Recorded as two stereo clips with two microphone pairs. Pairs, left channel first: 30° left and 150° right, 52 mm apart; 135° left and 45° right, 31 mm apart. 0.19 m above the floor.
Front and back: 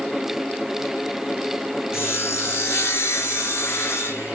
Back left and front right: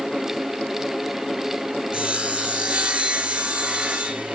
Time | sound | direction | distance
1.9 | sawing | straight ahead | 3.5 m